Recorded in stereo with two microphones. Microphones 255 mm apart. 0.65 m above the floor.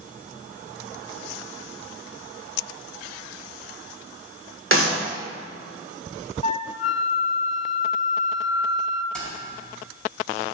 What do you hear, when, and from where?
4.7 s a clap: 55° right (ahead or behind), 1.9 m
6.4 s a flute: 30° left (ahead or behind), 0.5 m
9.1 s keys jangling: 5° left (ahead or behind), 4 m